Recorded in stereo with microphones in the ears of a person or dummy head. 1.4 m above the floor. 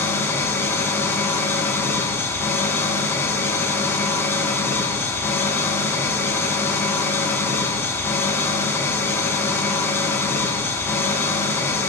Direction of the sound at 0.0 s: 15° left (ahead or behind).